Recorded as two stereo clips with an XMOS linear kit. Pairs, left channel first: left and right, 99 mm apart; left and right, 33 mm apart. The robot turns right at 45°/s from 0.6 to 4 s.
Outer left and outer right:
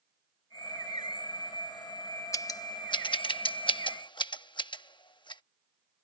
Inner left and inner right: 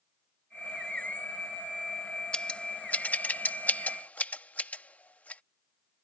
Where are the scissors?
35° left (ahead or behind); by 5.4 s 50° left (ahead or behind).